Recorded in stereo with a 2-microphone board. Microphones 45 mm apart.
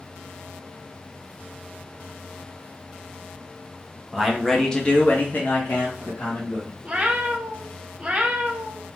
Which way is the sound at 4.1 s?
5° right (ahead or behind).